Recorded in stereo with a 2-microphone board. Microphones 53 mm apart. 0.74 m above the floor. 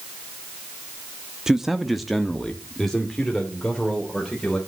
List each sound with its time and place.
1.5 s a man speaking: 10° right (ahead or behind), 0.7 m; by 4.6 s 10° left (ahead or behind), 3 m